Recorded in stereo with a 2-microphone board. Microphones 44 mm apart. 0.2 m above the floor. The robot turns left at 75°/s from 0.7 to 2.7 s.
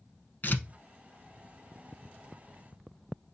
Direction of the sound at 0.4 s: 45° left (ahead or behind).